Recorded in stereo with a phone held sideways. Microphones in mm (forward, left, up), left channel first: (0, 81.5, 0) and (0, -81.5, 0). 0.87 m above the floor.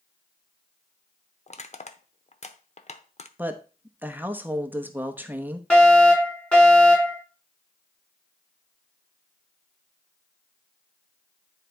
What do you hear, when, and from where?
1.5 s crushing: 45° left (ahead or behind), 0.8 m
3.4 s a woman speaking: 10° right (ahead or behind), 0.9 m
5.7 s a fire alarm: 10° left (ahead or behind), 4.5 m